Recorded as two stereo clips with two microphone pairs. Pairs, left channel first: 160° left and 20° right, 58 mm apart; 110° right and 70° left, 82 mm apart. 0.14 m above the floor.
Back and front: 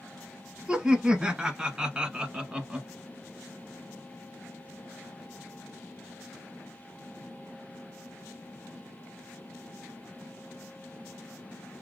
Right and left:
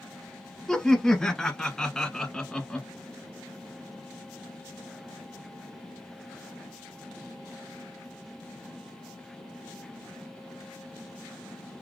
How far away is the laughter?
About 1.0 m.